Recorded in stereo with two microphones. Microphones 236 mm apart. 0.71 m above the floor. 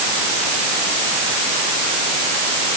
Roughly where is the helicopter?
No helicopter in this recording.